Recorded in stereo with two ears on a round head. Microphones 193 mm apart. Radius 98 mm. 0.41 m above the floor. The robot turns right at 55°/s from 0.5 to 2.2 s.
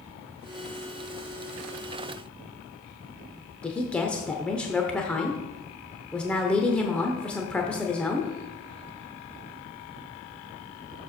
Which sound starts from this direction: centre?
A woman speaking, at 3.6 s.